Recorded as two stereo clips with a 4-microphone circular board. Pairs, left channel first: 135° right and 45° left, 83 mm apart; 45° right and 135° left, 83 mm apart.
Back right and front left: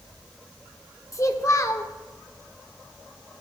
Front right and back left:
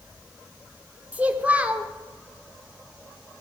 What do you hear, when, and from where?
1.1 s a child speaking: 160° right, 1.0 m